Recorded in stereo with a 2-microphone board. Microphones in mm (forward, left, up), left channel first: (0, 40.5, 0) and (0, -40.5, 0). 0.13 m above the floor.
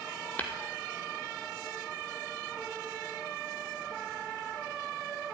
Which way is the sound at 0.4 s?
20° left (ahead or behind).